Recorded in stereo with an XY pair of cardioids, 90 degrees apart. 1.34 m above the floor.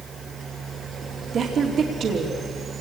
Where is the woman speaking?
65° right, 2.5 m.